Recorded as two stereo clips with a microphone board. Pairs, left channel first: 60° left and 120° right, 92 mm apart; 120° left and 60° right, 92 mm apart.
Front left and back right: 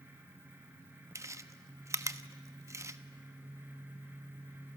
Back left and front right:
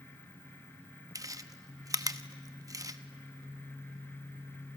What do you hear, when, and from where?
1.1 s chewing: 85° right, 0.9 m